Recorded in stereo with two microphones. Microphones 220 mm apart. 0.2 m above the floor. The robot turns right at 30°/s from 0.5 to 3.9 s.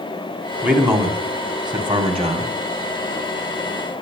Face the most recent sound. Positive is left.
turn(degrees=-70)